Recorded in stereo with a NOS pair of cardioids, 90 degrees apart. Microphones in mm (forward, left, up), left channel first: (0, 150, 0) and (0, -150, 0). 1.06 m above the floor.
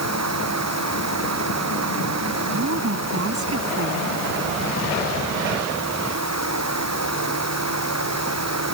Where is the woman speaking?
50° right.